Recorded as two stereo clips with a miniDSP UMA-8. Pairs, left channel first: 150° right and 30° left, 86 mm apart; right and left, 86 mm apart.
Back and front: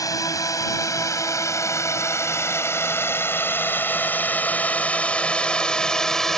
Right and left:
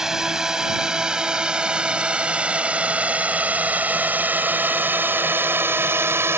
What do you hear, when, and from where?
0.0 s a drone: 170° left; by 6.4 s 125° left